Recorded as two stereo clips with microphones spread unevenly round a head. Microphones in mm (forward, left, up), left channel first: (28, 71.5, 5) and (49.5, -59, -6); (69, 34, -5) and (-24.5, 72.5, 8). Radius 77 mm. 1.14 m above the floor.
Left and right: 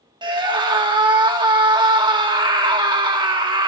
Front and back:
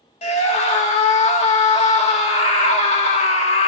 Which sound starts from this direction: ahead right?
A scream, at 0.2 s.